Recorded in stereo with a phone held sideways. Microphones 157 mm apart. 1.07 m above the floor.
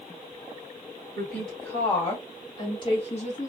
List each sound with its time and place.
1.1 s a woman speaking: 5° left (ahead or behind), 1.7 m; by 3.5 s 55° left (ahead or behind), 0.8 m